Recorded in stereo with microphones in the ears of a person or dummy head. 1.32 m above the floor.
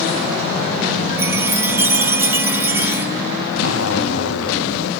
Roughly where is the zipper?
Left.